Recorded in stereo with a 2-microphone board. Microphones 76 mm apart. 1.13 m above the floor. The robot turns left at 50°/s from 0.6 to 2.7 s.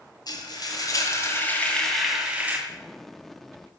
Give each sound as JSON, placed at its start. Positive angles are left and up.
{"t": 0.3, "sound": "frying", "azimuth_deg": 70, "distance_m": 2.0}
{"t": 2.7, "sound": "an explosion", "side_deg": 5, "distance_m": 0.8}